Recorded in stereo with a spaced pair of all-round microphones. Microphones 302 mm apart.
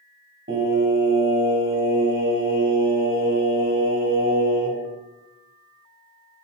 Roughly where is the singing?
Right.